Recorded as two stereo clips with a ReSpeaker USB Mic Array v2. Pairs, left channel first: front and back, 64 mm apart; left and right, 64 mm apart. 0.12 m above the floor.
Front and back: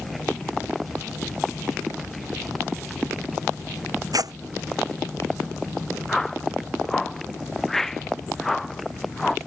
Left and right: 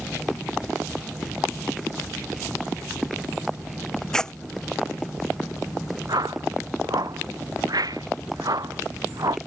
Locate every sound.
4.1 s tearing paper: 170° left
6.1 s a whoosh: 85° right